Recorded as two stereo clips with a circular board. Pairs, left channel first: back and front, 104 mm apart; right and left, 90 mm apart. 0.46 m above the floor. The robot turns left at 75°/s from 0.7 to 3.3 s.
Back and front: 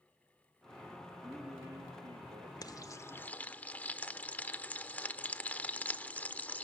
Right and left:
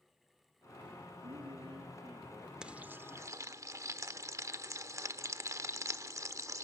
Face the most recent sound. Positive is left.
turn(degrees=115)